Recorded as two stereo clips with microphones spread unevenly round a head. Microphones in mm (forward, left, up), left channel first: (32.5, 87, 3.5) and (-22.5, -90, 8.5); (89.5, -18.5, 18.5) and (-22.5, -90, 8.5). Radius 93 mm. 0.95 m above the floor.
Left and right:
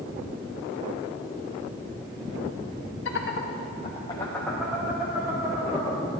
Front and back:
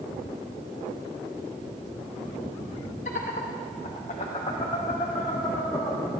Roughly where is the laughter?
Left.